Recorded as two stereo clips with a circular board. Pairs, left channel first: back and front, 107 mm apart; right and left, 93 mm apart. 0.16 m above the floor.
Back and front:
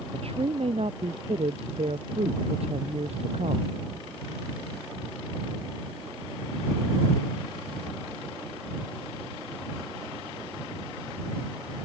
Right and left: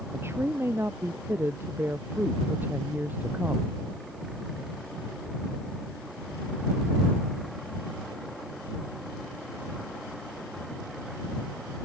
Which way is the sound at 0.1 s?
25° left.